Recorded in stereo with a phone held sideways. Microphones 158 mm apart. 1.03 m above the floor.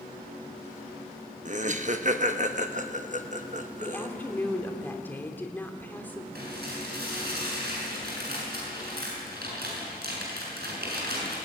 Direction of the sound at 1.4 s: 50° right (ahead or behind).